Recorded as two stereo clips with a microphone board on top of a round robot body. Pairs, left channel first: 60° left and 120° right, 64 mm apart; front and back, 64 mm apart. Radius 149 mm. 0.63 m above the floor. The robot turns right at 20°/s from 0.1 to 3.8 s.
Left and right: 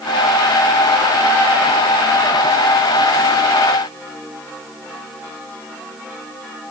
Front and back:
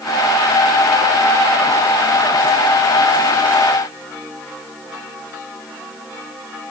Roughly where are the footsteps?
I don't hear footsteps.